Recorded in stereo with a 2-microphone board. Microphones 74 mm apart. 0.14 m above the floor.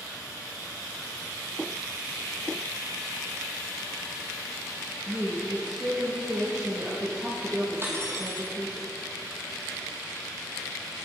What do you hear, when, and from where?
5.1 s a woman speaking: 35° right (ahead or behind), 3 m
7.8 s cutlery clinking: 35° right (ahead or behind), 3 m